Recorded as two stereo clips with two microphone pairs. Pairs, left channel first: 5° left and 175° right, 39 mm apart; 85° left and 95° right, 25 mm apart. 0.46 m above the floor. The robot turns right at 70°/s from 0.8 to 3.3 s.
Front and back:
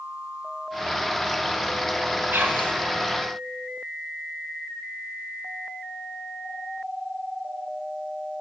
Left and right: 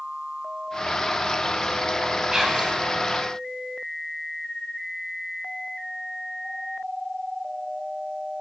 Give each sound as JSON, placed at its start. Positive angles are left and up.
{"t": 2.3, "sound": "whispering", "azimuth_deg": -165, "distance_m": 2.5}